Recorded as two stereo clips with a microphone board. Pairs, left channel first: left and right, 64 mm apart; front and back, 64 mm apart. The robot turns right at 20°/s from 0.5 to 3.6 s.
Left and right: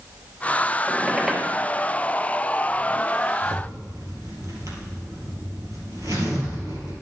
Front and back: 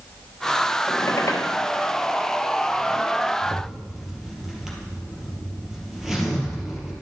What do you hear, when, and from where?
0.9 s a squeak: 15° right, 1.3 m; by 1.5 s straight ahead, 1.3 m
3.4 s a zipper: 100° right, 2.5 m; by 6.9 s 95° right, 2.5 m